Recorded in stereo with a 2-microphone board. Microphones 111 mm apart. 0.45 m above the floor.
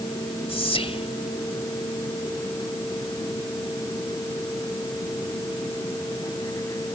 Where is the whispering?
60° left (ahead or behind).